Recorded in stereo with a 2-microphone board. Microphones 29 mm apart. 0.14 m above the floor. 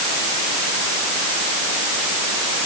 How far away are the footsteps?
I don't hear footsteps.